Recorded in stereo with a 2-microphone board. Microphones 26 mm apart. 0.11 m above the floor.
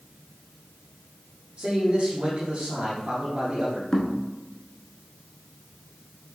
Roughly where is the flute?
No flute in this recording.